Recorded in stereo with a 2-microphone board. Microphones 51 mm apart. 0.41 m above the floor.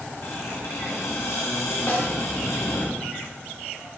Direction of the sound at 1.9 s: 50° left (ahead or behind).